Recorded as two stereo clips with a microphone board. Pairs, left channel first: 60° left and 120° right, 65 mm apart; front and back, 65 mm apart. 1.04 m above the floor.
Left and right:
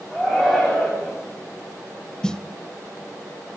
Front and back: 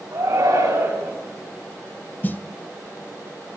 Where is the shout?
160° left, 7 m; by 1.1 s 155° left, 7.5 m.